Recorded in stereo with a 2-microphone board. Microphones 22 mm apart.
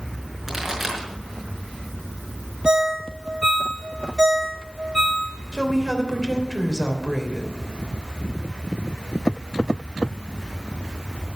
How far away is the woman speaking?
About 3 m.